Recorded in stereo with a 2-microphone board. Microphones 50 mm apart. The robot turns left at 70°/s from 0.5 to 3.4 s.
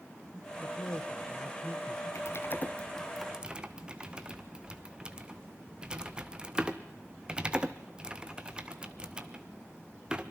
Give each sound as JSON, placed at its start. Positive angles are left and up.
{"t": 0.6, "sound": "a man speaking", "azimuth_deg": 105, "distance_m": 3.0}
{"t": 2.1, "sound": "typing on a keyboard", "side_deg": 70, "distance_m": 1.1}